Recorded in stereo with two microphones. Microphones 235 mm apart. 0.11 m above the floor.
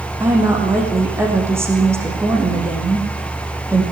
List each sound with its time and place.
0.2 s a woman speaking: 10° right (ahead or behind), 7 m